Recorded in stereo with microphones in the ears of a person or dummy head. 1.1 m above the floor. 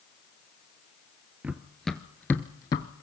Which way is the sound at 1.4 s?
5° right (ahead or behind).